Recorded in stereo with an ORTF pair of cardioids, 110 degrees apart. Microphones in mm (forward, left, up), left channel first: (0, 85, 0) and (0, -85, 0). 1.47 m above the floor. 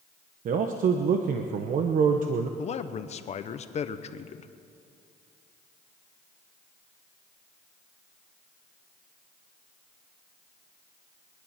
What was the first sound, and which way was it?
A man speaking, 55° right.